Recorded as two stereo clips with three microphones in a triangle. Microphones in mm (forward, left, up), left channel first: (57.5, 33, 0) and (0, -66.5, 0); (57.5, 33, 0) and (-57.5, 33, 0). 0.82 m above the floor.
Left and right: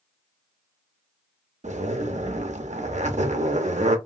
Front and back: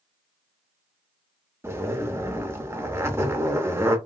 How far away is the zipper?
About 0.5 m.